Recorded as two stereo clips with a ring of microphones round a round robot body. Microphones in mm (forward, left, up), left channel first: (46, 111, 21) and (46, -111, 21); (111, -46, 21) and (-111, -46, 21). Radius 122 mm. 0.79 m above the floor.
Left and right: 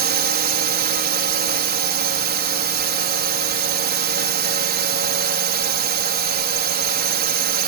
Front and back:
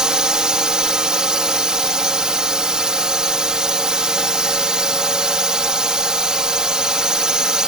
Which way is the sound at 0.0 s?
95° right.